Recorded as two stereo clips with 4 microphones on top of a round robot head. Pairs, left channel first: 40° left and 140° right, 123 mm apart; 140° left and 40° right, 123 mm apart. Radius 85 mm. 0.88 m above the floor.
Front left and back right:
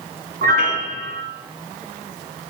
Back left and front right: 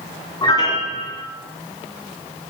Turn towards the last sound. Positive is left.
turn(degrees=-160)